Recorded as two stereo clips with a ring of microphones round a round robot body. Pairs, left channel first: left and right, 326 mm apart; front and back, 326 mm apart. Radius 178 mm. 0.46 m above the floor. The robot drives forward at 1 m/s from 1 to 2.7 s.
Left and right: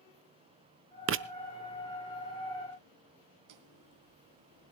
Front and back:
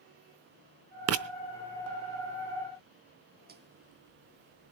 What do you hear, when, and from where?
1.1 s writing: 135° right, 0.9 m; by 1.2 s 145° right, 1.0 m
3.5 s footsteps: 120° right, 1.5 m; by 4.7 s 170° right, 1.3 m